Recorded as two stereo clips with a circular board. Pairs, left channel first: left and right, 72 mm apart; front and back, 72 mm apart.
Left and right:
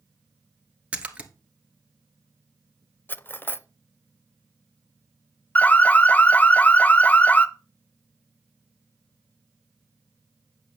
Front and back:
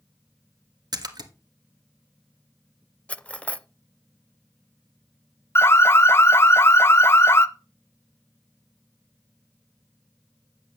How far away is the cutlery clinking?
About 0.5 m.